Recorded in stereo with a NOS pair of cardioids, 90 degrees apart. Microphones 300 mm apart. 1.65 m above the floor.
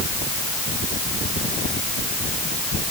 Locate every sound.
Only background noise.